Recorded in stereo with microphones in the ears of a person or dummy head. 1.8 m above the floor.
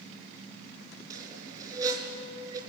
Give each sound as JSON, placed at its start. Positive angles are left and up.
{"t": 1.1, "sound": "a squeak", "side_deg": -15, "distance_m": 4.0}